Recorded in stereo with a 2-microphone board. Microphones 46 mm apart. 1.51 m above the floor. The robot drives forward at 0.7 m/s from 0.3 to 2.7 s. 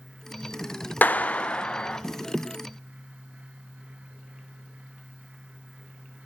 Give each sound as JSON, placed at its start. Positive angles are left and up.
{"t": 1.0, "sound": "a clap", "side_deg": 45, "distance_m": 0.8}